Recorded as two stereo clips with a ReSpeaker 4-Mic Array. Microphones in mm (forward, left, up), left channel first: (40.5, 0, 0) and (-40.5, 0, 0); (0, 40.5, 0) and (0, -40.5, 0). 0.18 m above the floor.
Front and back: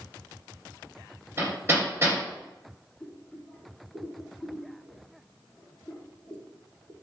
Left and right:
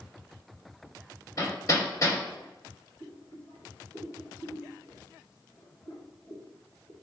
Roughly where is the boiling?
Left.